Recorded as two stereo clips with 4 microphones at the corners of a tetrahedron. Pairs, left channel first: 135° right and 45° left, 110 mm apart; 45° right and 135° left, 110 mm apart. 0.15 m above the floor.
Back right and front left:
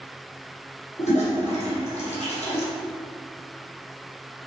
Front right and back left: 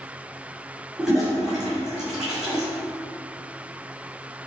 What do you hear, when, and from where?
1.0 s a toilet flushing: 140° right, 1.7 m